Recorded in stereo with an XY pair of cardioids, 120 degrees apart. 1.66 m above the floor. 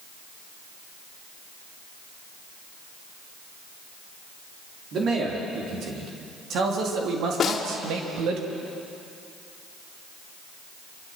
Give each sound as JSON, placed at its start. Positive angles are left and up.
{"t": 4.9, "sound": "a man speaking", "azimuth_deg": -55, "distance_m": 4.5}
{"t": 7.4, "sound": "a snare drum", "azimuth_deg": 45, "distance_m": 2.5}